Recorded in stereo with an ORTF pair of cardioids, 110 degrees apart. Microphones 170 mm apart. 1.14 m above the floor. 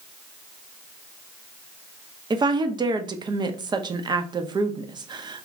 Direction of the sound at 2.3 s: 25° right.